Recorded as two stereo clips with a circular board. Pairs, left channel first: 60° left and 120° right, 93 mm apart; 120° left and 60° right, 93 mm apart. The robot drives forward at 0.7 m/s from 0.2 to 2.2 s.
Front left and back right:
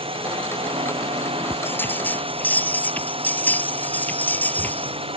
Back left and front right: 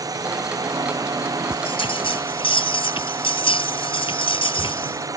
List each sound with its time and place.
0.0 s a drone: 110° right
1.5 s a bell: 125° left; by 5.1 s 130° left